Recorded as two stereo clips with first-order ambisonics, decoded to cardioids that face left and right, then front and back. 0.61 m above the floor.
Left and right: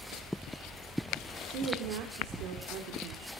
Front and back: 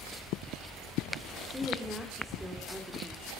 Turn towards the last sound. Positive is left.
turn(degrees=-90)